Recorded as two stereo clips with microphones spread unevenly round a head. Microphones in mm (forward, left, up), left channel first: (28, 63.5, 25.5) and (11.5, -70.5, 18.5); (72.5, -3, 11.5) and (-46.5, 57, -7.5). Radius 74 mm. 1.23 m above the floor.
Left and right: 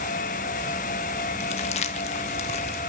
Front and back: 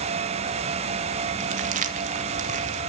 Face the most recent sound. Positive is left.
turn(degrees=130)